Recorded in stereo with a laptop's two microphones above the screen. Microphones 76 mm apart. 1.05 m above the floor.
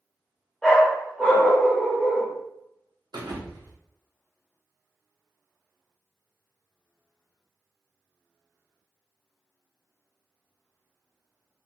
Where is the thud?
65° right (ahead or behind), 0.7 m.